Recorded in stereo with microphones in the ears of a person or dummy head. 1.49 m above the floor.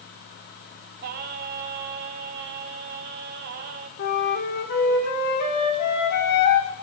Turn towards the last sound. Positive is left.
turn(degrees=55)  # may be behind; listen again after turning